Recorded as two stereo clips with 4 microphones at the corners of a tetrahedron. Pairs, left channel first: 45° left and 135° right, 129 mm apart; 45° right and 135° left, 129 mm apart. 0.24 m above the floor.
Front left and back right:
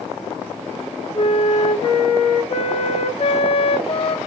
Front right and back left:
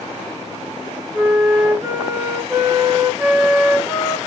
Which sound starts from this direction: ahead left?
A flute, at 1.1 s.